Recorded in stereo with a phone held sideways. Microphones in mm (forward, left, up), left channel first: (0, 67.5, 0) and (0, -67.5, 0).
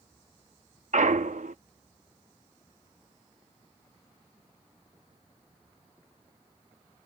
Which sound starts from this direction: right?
A clunk, at 0.9 s.